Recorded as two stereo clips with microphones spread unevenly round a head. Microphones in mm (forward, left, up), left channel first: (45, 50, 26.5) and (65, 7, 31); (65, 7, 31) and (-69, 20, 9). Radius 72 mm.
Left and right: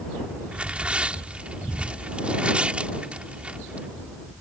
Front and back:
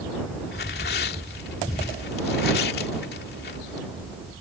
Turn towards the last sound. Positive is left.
turn(degrees=0)